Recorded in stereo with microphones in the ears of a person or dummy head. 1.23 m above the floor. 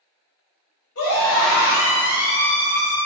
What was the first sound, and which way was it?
A scream, 60° left (ahead or behind).